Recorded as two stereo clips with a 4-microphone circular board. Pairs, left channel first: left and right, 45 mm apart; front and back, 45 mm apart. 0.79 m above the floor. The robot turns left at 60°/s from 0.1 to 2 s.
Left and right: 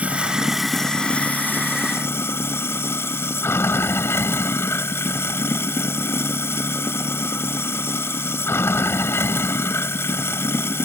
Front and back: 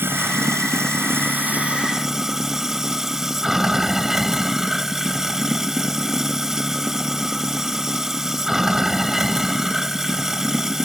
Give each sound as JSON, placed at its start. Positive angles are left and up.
{"t": 0.0, "sound": "running water", "azimuth_deg": -145}